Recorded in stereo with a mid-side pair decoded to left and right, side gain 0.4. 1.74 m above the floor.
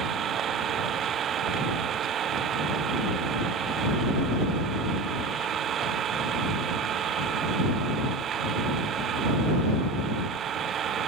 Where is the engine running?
65° right.